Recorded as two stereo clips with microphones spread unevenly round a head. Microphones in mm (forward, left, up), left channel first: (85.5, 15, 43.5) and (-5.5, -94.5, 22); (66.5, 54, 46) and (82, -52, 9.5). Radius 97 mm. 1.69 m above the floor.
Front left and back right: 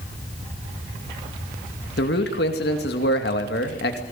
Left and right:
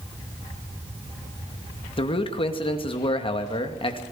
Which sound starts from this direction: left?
A man speaking, at 2.0 s.